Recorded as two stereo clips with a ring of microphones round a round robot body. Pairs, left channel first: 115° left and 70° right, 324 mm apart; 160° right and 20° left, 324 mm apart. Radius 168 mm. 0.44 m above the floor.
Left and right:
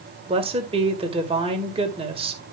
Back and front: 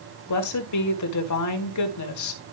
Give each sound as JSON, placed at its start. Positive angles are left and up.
{"t": 0.3, "sound": "a woman speaking", "azimuth_deg": -140, "distance_m": 1.9}